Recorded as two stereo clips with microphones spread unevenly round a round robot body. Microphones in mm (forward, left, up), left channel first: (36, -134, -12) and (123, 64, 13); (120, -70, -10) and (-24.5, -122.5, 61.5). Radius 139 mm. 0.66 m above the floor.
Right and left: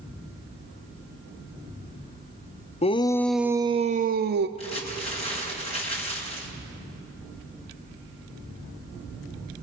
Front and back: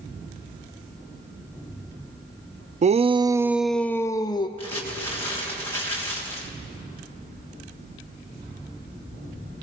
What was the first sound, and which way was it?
A shout, 105° right.